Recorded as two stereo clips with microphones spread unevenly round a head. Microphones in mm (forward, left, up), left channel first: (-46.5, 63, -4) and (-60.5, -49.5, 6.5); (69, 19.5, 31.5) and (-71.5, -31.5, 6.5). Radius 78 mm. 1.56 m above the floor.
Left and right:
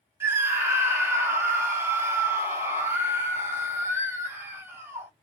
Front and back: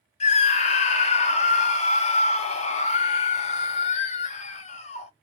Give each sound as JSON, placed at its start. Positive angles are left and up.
{"t": 0.2, "sound": "a scream", "azimuth_deg": -20, "distance_m": 0.7}